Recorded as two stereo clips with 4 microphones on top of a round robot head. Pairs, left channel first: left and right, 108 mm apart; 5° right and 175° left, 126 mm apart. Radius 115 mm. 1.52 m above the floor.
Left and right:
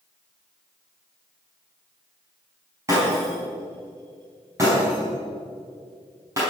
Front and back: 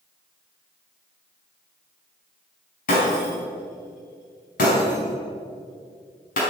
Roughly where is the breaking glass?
Ahead.